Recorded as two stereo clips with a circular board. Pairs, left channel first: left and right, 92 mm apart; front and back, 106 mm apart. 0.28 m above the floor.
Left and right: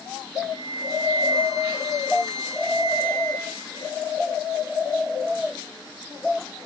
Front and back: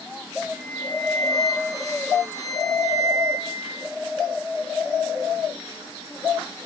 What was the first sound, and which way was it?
A flute, 125° left.